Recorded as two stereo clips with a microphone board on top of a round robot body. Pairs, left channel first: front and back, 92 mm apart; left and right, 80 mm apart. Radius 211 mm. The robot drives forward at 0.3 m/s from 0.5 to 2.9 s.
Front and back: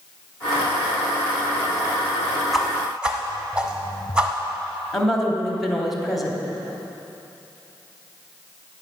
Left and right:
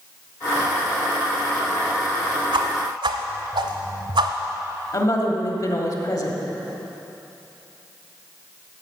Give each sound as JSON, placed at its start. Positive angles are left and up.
{"t": 2.5, "sound": "a whoosh", "azimuth_deg": -90, "distance_m": 0.7}
{"t": 4.9, "sound": "a woman speaking", "azimuth_deg": 90, "distance_m": 2.0}